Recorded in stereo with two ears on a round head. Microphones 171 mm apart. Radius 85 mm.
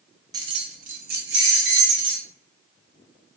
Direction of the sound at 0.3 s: 20° right (ahead or behind).